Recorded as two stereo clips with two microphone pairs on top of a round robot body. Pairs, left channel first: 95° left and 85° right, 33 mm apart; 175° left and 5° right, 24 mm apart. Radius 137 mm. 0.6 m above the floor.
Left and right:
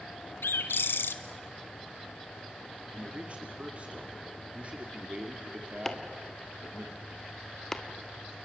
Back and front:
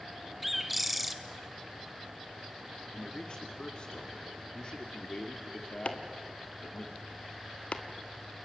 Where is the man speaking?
140° right, 2 m.